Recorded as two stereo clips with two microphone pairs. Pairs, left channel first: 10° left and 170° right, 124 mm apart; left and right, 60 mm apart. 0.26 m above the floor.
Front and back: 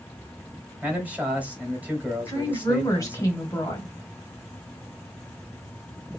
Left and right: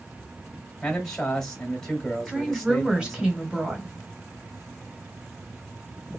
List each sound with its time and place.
0.8 s a man speaking: 145° left, 1.3 m
2.3 s a woman speaking: 25° right, 1.3 m